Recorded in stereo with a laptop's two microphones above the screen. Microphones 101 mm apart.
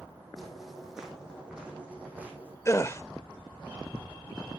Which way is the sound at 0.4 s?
Centre (ahead or behind).